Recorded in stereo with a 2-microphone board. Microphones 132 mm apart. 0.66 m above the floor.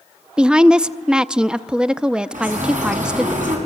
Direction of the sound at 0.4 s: 5° right (ahead or behind).